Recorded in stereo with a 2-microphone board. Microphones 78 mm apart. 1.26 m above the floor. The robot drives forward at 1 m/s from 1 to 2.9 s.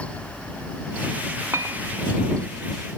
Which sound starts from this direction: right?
A clink, at 1.5 s.